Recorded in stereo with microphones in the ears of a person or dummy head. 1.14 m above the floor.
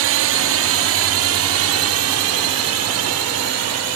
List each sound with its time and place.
0.0 s a drone: 60° right (ahead or behind); by 4.0 s 75° right (ahead or behind)